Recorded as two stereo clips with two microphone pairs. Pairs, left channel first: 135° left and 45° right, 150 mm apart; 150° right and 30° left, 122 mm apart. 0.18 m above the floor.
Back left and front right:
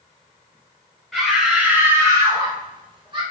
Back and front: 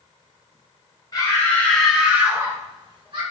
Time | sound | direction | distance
1.1 | a scream | 135° right | 1.3 m